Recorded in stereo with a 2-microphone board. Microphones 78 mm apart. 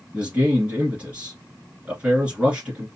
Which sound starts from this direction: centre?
A man speaking, at 0.1 s.